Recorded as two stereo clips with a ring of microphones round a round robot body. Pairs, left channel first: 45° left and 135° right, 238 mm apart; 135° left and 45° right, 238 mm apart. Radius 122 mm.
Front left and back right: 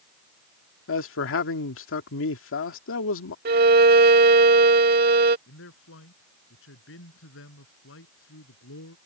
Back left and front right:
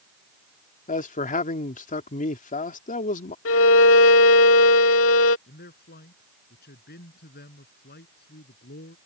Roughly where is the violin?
Behind.